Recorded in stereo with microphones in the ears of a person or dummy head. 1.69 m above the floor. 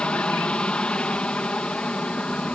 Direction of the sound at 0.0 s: 5° left (ahead or behind).